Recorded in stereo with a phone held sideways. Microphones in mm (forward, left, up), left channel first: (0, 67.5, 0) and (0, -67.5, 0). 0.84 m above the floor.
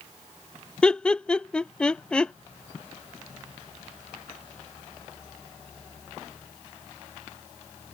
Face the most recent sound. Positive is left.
turn(degrees=5)  # may be behind; listen again after turning